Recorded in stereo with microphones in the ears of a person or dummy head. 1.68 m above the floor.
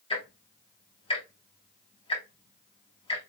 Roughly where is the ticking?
Left.